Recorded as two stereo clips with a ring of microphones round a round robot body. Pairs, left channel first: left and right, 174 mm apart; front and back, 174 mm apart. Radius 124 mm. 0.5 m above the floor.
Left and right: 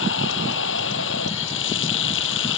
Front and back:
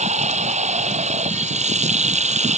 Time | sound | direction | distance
0.0 | running water | 130° left | ?